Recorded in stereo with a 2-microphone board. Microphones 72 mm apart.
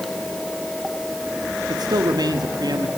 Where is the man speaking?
70° right (ahead or behind), 1.9 m.